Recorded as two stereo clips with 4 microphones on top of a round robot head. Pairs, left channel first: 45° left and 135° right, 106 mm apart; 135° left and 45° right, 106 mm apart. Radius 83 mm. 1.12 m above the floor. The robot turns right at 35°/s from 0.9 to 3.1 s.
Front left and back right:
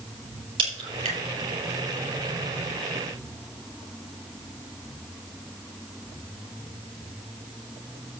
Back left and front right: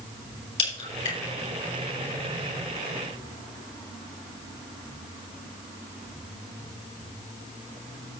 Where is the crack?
175° left, 5.5 m; by 1.2 s 175° right, 5.5 m.